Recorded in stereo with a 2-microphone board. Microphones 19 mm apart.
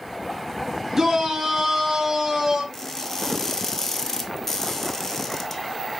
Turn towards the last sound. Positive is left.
turn(degrees=20)  # may be behind; listen again after turning